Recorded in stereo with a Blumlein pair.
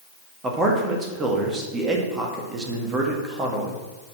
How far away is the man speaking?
About 1.9 m.